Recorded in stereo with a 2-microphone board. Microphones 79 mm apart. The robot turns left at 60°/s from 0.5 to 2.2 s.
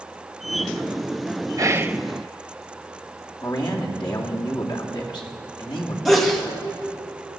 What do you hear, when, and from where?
1.6 s whispering: 40° right (ahead or behind), 0.6 m; by 2.0 s 15° right (ahead or behind), 0.6 m
3.4 s a man speaking: 75° left (ahead or behind), 2.5 m
6.0 s a sneeze: 5° left (ahead or behind), 1.9 m